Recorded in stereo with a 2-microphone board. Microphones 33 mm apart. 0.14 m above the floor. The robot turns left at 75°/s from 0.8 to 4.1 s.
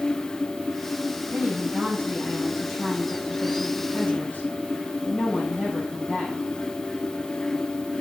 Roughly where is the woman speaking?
Ahead right.